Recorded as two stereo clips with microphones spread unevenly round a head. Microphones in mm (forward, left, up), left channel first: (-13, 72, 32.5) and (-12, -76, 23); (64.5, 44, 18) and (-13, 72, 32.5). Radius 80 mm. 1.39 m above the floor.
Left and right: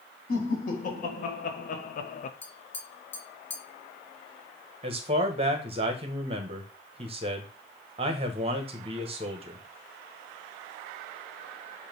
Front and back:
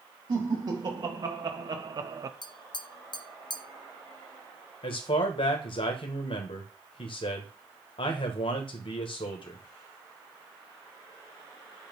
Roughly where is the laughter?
Behind left.